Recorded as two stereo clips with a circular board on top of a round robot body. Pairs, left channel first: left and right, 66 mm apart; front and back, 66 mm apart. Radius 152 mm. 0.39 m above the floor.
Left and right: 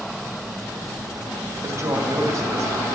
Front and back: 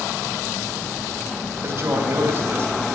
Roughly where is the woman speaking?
Behind right.